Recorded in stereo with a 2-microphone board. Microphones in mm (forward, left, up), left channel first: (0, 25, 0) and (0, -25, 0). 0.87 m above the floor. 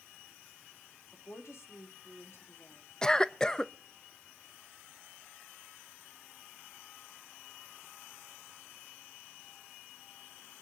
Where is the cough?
15° left (ahead or behind), 0.6 m.